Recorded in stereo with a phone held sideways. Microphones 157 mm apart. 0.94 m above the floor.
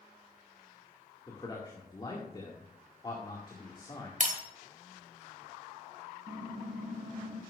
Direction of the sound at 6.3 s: 60° right (ahead or behind).